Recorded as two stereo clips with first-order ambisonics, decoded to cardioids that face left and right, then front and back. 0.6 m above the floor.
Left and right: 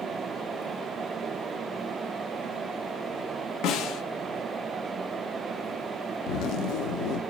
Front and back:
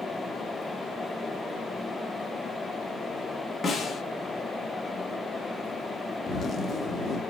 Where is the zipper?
65° left, 0.7 m.